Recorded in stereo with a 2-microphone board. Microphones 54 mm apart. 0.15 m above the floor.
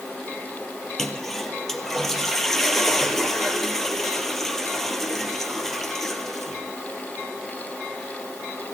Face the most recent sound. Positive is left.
turn(degrees=5)  # may be behind; listen again after turning